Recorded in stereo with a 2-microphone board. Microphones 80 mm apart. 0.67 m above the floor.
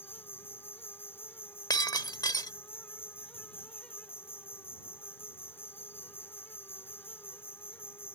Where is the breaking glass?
50° left (ahead or behind).